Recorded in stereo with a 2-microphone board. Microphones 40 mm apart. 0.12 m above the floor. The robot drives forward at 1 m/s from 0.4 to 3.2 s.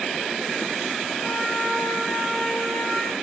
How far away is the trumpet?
About 5.5 m.